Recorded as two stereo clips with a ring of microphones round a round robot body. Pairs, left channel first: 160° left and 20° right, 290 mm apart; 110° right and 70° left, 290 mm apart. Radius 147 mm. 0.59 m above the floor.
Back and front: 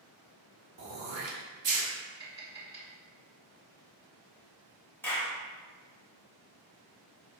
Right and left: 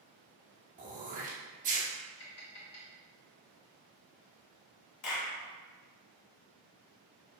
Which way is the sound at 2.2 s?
100° right.